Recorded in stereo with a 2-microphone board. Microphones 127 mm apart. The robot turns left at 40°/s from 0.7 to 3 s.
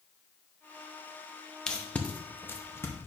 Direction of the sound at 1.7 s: 5° left (ahead or behind).